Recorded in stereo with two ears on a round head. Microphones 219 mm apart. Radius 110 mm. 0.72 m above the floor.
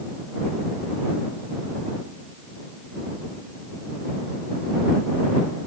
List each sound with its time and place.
Only background noise.